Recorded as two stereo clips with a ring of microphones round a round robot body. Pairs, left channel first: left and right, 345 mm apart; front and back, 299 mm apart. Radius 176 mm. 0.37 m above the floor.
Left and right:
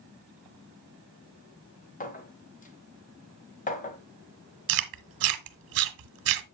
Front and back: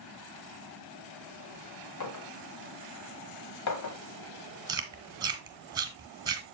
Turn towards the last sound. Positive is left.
turn(degrees=-105)